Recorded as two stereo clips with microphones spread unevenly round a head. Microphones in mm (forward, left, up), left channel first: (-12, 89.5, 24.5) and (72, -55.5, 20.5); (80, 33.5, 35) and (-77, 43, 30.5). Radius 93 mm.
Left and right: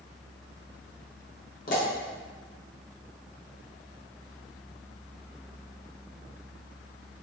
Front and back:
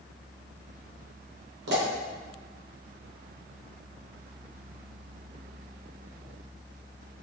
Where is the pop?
165° left, 0.8 m.